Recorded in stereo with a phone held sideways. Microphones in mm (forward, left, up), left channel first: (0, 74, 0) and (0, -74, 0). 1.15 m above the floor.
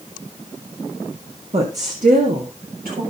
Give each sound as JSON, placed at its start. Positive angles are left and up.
{"t": 1.5, "sound": "a woman speaking", "side_deg": -45, "distance_m": 1.5}